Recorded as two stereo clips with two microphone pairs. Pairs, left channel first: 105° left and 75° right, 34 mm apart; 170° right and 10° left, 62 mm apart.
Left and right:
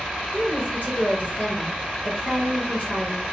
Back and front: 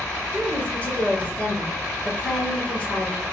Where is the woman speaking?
125° left, 2.5 m.